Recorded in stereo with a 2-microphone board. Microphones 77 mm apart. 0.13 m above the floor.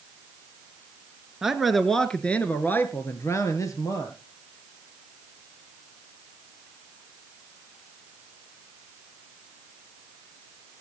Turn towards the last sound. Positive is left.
turn(degrees=50)  # may be behind; listen again after turning